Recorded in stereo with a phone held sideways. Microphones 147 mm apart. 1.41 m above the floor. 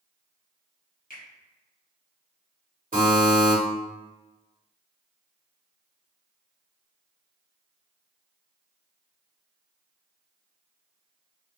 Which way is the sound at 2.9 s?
60° right (ahead or behind).